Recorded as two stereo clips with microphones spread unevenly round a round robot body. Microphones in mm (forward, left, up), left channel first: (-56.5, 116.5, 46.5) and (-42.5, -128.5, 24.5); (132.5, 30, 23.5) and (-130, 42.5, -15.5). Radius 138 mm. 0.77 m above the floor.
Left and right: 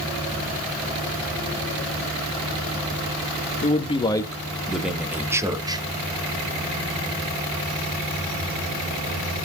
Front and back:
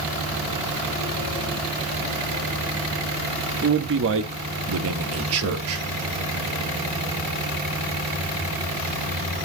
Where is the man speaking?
150° left, 1.4 m; by 5.8 s 155° right, 2 m.